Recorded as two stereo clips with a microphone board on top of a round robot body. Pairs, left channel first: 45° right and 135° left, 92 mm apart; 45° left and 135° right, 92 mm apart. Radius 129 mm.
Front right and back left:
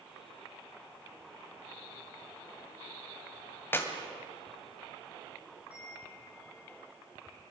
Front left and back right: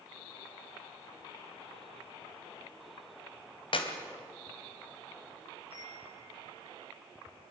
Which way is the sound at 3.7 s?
20° left.